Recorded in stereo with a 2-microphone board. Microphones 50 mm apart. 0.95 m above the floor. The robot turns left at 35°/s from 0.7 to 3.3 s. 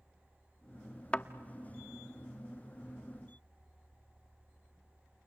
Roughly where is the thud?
Left.